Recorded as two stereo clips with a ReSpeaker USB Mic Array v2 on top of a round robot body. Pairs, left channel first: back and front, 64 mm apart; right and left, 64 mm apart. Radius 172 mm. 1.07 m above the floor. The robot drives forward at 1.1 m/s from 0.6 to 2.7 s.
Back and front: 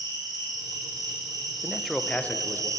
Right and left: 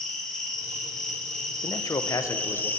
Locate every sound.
0.0 s an insect: 5° right, 3 m; by 2.8 s 30° right, 0.8 m
1.6 s a man speaking: 70° right, 1.0 m; by 2.7 s 135° right, 1.3 m